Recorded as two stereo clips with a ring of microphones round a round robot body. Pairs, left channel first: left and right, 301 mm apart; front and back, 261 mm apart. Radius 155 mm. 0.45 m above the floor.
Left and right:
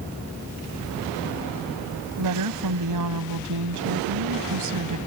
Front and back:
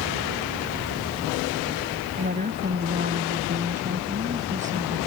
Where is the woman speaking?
115° right.